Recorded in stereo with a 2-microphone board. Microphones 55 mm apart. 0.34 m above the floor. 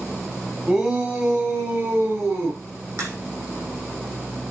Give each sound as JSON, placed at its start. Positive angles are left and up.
{"t": 0.7, "sound": "a shout", "side_deg": -10, "distance_m": 2.0}
{"t": 3.0, "sound": "a crack", "side_deg": -65, "distance_m": 4.5}